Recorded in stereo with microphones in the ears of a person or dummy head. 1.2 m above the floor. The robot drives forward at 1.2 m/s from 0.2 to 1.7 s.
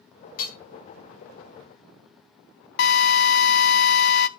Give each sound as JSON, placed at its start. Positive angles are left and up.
{"t": 0.4, "sound": "hammering", "side_deg": 55, "distance_m": 5.0}
{"t": 2.8, "sound": "a drill", "side_deg": 60, "distance_m": 0.7}